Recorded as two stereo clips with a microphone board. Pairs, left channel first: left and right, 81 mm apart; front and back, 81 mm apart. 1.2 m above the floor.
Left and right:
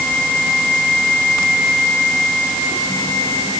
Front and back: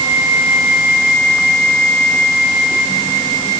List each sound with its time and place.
Only background noise.